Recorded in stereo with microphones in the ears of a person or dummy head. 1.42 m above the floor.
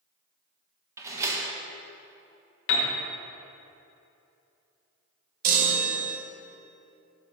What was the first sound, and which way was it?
A door slam, 15° right (ahead or behind).